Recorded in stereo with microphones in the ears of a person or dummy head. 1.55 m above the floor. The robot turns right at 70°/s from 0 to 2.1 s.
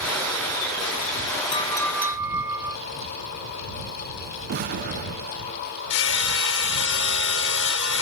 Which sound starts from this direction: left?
Hammering, at 5.9 s.